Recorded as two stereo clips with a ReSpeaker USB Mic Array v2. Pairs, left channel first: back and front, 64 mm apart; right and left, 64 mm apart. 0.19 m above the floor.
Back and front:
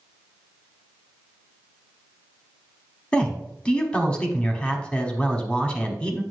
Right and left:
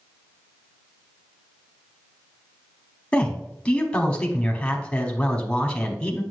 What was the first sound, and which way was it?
A man speaking, 130° right.